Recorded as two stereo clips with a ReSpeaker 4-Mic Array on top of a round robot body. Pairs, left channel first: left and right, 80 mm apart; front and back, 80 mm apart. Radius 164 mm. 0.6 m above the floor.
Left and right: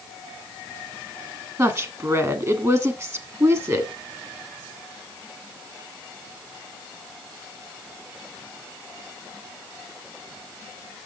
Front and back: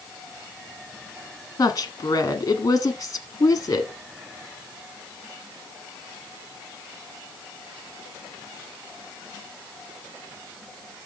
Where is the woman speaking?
40° right, 1.5 m.